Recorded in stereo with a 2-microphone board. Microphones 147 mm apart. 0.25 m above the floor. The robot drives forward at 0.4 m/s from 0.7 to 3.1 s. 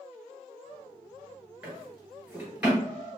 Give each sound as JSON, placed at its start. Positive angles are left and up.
{"t": 1.6, "sound": "a drawer", "side_deg": -10, "distance_m": 2.0}